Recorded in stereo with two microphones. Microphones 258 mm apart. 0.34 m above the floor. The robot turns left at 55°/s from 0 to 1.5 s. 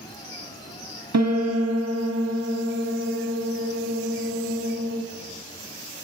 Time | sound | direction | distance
1.1 | a piano | 85° right | 0.5 m